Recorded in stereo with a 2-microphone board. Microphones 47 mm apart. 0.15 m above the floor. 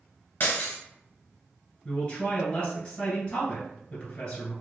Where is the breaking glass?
45° left (ahead or behind), 1.1 m.